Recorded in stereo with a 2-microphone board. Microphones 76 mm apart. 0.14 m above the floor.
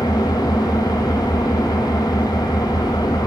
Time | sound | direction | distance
0.0 | an engine running | 60° left (ahead or behind) | 1.0 m